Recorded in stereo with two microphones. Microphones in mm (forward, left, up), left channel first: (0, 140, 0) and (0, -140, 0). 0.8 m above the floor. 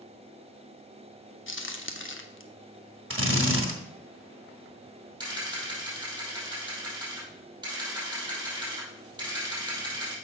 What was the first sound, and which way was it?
A crack, 45° left (ahead or behind).